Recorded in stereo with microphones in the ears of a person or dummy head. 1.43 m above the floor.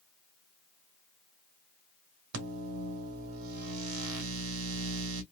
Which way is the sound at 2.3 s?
85° right.